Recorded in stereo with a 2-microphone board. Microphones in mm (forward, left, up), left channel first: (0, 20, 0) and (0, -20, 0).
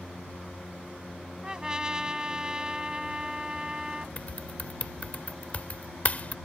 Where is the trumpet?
20° right (ahead or behind).